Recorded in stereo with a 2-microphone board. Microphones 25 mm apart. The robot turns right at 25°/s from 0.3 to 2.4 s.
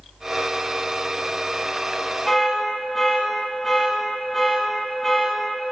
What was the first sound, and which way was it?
An alarm, 15° left (ahead or behind).